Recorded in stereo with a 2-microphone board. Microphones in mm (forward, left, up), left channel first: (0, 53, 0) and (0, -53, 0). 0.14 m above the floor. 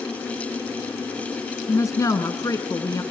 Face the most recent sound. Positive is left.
turn(degrees=30)  # may be behind; listen again after turning